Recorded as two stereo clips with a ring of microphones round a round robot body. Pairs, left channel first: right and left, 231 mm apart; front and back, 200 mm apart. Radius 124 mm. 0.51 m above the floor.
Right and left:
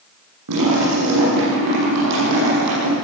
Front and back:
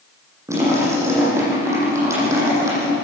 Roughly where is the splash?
Left.